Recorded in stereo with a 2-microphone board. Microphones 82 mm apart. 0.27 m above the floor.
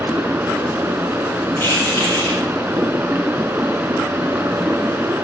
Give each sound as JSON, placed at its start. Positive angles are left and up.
{"t": 0.0, "sound": "running water", "side_deg": -25, "distance_m": 3.5}
{"t": 1.6, "sound": "keys jangling", "side_deg": 30, "distance_m": 9.5}